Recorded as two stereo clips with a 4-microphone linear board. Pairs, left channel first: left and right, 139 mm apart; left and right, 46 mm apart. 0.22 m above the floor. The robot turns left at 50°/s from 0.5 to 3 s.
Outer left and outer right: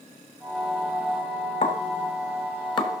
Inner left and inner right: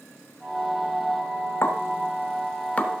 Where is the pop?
50° left (ahead or behind), 1.3 m; by 3.0 s 25° left (ahead or behind), 1.3 m.